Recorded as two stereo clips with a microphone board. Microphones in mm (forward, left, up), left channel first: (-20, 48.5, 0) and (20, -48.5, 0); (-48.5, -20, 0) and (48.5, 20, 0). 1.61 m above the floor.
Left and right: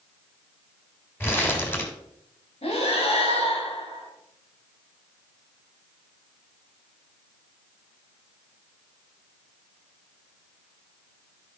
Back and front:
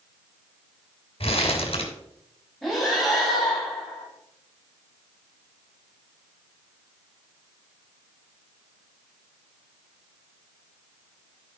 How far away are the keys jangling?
No keys jangling in this recording.